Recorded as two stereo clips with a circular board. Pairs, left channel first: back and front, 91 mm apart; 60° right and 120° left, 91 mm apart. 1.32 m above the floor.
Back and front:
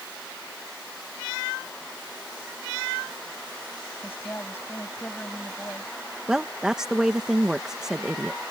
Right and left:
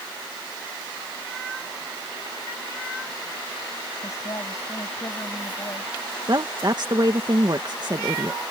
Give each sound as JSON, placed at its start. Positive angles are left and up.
{"t": 4.0, "sound": "a woman speaking", "azimuth_deg": -115}
{"t": 6.3, "sound": "a woman speaking", "azimuth_deg": 85}